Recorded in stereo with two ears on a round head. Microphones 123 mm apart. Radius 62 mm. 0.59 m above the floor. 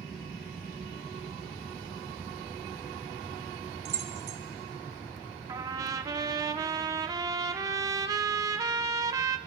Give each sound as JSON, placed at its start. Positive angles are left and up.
{"t": 3.9, "sound": "keys jangling", "side_deg": -45, "distance_m": 1.3}
{"t": 5.5, "sound": "a trumpet", "side_deg": -25, "distance_m": 0.6}